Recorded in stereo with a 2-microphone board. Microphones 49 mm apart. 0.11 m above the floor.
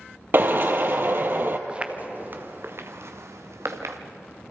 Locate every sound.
0.3 s a drill: 45° right (ahead or behind), 1.5 m
1.7 s footsteps: 20° right (ahead or behind), 1.6 m; by 4.0 s 80° right, 3 m